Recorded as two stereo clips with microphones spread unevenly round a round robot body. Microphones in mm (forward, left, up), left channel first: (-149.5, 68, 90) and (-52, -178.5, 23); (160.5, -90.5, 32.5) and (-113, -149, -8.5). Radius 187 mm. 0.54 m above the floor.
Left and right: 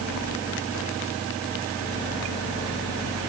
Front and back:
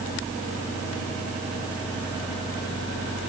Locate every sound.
Only background noise.